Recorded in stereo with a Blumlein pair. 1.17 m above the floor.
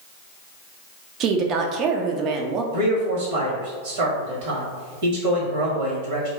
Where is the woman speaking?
30° right, 0.6 m.